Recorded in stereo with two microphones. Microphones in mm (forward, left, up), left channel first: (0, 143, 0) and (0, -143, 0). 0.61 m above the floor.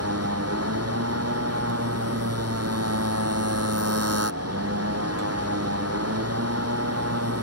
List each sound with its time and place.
0.0 s a motorcycle: 55° right (ahead or behind)